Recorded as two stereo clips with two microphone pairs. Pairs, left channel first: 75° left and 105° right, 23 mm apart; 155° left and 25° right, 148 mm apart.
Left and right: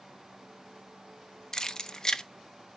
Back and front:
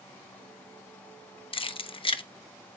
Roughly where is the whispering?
No whispering in this recording.